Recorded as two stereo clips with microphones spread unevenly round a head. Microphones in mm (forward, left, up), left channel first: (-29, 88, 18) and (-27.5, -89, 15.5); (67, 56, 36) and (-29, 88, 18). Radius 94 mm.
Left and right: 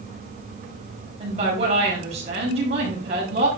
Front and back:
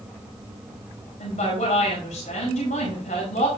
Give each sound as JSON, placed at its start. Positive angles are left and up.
{"t": 1.2, "sound": "a woman speaking", "azimuth_deg": -30, "distance_m": 4.5}